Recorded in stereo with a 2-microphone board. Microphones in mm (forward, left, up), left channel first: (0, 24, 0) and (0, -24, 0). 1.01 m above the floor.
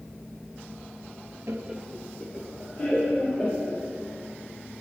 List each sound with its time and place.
1.5 s laughter: 55° right (ahead or behind), 0.6 m; by 3.8 s 55° left (ahead or behind), 3.5 m